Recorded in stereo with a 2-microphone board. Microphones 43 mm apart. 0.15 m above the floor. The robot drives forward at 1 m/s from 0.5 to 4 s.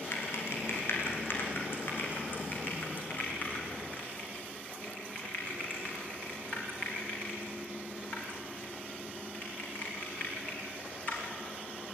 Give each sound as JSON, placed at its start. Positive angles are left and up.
{"t": 0.1, "sound": "typing on a keyboard", "side_deg": 65, "distance_m": 4.0}